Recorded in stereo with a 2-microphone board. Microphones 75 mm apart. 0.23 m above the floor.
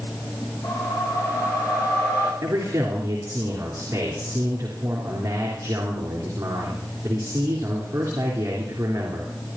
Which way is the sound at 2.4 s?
40° right (ahead or behind).